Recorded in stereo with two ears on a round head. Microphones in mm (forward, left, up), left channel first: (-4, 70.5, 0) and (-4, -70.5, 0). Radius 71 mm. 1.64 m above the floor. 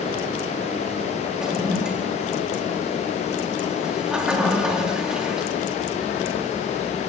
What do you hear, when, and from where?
1.4 s a toilet flushing: 5° right (ahead or behind), 3.5 m